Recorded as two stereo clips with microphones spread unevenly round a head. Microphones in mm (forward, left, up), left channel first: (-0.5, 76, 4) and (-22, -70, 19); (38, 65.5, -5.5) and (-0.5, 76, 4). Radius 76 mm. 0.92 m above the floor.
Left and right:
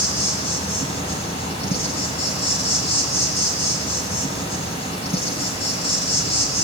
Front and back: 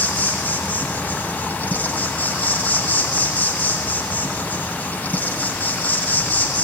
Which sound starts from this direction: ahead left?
An insect, at 0.0 s.